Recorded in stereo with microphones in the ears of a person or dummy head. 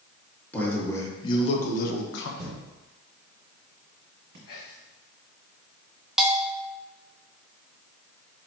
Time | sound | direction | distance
0.5 | a man speaking | 10° left (ahead or behind) | 1.5 m
2.4 | a thud | 50° right (ahead or behind) | 1.6 m
4.5 | whispering | 55° left (ahead or behind) | 1.2 m
6.2 | a bell | centre (ahead or behind) | 0.6 m